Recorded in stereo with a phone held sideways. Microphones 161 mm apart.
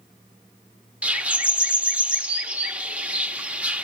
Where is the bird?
10° right (ahead or behind), 1.1 m.